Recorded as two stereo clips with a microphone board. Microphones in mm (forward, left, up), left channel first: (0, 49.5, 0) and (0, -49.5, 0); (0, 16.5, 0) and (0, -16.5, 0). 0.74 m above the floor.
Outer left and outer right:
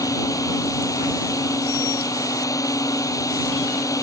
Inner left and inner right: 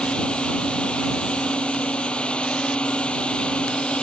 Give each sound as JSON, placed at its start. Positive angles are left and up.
{"t": 0.0, "sound": "a drone", "side_deg": 35}